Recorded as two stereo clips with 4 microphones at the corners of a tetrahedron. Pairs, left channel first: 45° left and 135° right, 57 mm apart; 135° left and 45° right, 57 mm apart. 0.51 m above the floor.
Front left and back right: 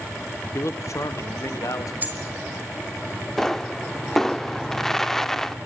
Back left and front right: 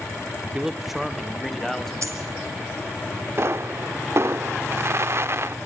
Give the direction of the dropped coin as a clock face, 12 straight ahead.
2 o'clock.